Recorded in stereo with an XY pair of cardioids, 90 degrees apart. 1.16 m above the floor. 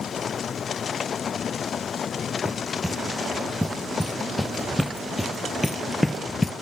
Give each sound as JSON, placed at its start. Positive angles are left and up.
{"t": 2.5, "sound": "running footsteps", "azimuth_deg": -5, "distance_m": 4.0}